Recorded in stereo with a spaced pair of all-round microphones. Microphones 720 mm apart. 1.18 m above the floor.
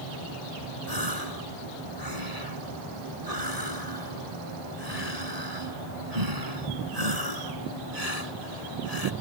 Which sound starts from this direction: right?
A gasp, at 0.9 s.